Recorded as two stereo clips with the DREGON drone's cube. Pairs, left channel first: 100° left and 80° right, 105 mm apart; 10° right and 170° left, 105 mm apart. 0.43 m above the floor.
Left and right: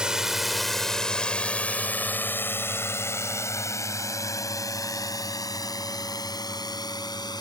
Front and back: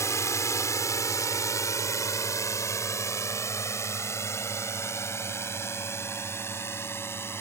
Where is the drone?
5° right; by 7.4 s 55° left.